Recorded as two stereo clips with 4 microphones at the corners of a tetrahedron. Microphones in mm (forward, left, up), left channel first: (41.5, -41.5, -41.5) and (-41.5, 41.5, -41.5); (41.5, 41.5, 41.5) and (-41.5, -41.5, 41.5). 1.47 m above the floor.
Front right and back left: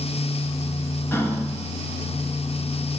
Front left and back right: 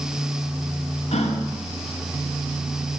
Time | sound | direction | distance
1.1 | a gasp | 25° left | 2.5 m